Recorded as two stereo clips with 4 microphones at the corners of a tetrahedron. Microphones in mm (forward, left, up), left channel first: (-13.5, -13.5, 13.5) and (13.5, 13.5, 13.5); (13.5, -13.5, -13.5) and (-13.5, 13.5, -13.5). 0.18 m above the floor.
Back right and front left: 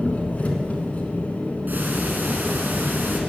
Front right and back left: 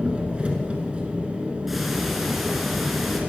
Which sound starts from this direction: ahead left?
Ticking, at 1.7 s.